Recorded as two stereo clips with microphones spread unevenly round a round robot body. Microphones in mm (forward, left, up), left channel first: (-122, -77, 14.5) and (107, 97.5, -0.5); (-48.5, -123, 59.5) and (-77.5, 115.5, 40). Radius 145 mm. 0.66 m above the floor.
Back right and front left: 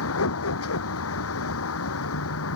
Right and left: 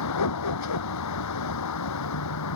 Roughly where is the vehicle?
Right.